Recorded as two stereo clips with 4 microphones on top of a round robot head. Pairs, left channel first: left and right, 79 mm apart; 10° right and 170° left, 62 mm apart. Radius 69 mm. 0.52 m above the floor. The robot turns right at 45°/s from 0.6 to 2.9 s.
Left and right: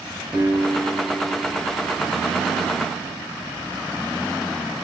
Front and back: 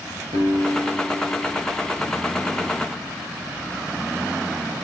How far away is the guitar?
About 3.5 m.